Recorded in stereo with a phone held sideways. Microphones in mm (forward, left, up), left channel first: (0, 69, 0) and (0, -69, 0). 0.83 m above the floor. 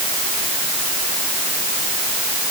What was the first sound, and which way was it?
Only background noise.